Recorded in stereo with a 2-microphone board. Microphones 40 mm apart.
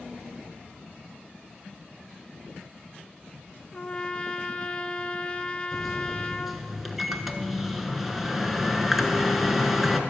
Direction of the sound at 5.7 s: 5° right (ahead or behind).